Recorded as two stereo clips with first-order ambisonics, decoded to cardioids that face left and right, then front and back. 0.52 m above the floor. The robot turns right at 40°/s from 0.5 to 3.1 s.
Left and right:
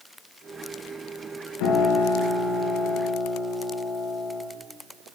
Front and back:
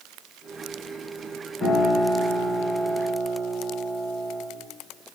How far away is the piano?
About 3 m.